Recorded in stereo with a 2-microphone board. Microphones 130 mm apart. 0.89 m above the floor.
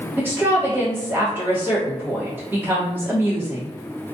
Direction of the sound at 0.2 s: 15° right (ahead or behind).